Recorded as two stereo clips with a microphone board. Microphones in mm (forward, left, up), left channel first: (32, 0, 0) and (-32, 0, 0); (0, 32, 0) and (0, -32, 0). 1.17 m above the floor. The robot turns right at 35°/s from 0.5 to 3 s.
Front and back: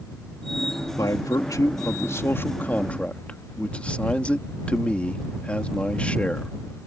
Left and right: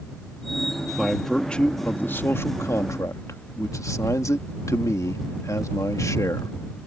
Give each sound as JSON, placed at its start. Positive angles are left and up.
{"t": 1.0, "sound": "a man speaking", "azimuth_deg": -5}